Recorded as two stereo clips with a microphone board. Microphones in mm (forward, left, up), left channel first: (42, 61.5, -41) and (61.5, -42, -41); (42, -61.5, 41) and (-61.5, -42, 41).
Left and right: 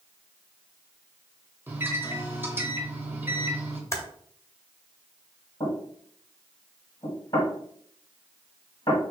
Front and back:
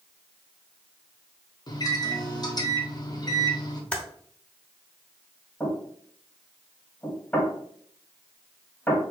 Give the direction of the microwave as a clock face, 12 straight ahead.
1 o'clock.